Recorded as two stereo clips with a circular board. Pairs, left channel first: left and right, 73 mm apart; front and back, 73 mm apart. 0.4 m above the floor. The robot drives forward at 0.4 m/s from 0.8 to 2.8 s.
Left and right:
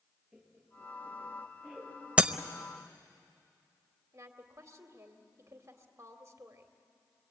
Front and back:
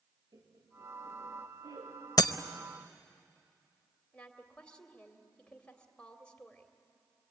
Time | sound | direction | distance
0.3 | laughter | straight behind | 7.5 m
2.2 | breaking glass | 20° right | 0.8 m
4.1 | a woman speaking | 70° right | 2 m